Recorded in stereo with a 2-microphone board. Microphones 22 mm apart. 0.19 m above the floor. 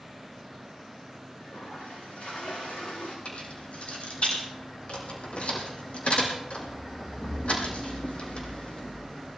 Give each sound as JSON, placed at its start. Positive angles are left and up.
{"t": 1.4, "sound": "a toilet flushing", "side_deg": 80, "distance_m": 9.0}
{"t": 3.2, "sound": "keys jangling", "side_deg": 80, "distance_m": 6.0}